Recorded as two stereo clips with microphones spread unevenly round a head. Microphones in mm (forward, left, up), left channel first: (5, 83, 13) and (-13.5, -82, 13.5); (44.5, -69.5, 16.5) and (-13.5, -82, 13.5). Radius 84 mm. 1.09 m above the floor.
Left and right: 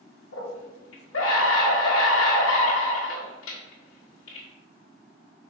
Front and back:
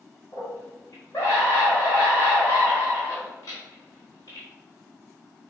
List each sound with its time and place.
0.3 s a scream: 80° left, 1.4 m